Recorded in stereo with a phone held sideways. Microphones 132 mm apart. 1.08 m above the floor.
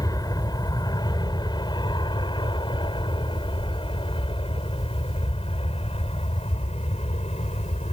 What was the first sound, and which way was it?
An aircraft, 25° left (ahead or behind).